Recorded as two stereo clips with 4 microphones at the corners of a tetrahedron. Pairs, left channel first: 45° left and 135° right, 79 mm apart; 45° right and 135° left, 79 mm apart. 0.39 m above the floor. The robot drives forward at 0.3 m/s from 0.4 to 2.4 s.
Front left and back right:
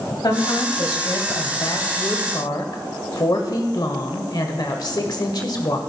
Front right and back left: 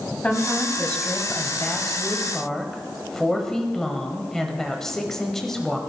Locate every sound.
0.2 s a woman speaking: 25° left, 1.7 m; by 5.8 s 40° left, 1.3 m